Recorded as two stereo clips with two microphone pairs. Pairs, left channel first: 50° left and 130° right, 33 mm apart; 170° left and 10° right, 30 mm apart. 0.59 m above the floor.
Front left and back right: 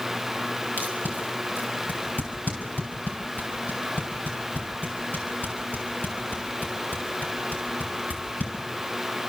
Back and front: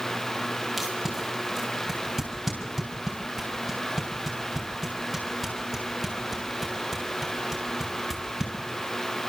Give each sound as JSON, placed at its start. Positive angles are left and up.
{"t": 0.8, "sound": "tape being pulled", "azimuth_deg": 75, "distance_m": 5.5}